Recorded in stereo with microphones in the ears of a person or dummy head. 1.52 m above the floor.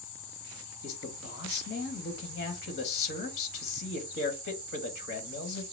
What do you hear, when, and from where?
0.8 s a man speaking: 60° left (ahead or behind), 1.5 m